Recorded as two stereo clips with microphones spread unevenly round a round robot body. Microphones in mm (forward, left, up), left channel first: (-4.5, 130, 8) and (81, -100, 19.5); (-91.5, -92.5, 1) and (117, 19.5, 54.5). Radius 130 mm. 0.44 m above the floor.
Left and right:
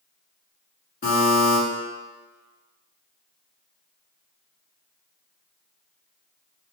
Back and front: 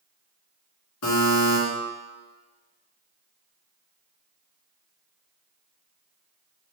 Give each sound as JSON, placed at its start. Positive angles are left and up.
{"t": 1.0, "sound": "a buzzer", "azimuth_deg": 170, "distance_m": 1.2}